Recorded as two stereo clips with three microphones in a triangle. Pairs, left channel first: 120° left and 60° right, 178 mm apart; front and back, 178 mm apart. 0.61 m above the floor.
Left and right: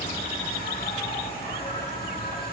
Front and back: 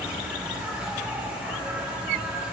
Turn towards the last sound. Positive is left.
turn(degrees=100)